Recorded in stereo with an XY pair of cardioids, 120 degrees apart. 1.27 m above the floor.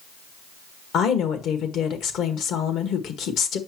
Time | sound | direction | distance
0.9 | a woman speaking | 65° left | 1.7 m